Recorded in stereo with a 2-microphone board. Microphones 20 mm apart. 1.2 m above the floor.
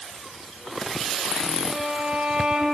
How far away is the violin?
About 6.5 m.